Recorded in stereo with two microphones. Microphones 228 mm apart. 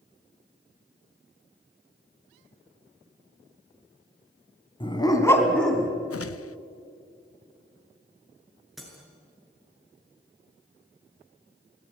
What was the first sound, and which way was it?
A dog barking, 20° left (ahead or behind).